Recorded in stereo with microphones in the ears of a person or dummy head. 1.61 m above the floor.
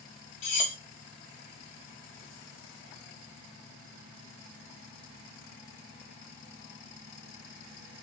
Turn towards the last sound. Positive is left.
turn(degrees=30)  # may be behind; listen again after turning